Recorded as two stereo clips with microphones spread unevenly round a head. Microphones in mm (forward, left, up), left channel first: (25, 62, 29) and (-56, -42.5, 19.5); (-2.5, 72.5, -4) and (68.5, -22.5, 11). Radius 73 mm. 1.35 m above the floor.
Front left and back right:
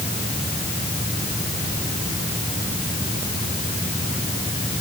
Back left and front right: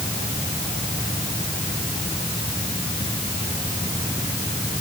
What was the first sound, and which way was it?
Only background noise.